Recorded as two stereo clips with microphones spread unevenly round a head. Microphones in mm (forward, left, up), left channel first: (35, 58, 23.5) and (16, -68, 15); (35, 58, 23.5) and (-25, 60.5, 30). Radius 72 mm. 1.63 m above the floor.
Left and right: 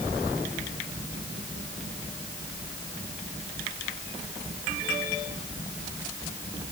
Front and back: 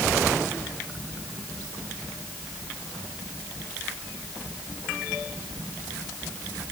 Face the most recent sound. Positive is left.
No sound to turn to.